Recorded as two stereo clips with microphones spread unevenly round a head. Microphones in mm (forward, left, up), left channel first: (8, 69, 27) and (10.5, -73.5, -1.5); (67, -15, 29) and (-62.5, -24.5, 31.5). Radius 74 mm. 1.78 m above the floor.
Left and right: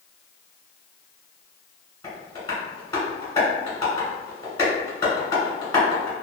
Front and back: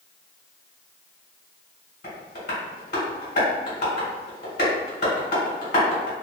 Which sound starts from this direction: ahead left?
Tapping, at 2.0 s.